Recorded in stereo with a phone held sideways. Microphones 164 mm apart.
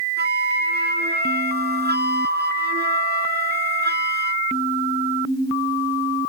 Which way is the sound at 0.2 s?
85° right.